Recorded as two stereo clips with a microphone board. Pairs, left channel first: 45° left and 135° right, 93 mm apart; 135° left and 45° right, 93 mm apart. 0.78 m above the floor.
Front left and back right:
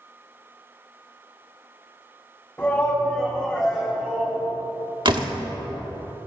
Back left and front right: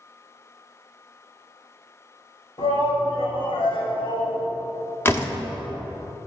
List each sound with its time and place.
2.6 s a shout: 115° left, 4.5 m; by 4.4 s 150° left, 4 m
5.0 s a door slam: 160° right, 1.2 m